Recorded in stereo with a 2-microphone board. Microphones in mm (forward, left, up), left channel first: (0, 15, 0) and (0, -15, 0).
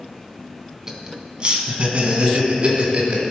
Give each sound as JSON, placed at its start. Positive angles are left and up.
{"t": 0.9, "sound": "laughter", "side_deg": -20, "distance_m": 1.3}